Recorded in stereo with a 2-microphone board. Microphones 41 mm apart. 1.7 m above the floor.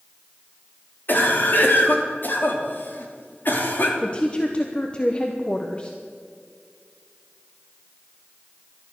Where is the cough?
55° left (ahead or behind), 3 m.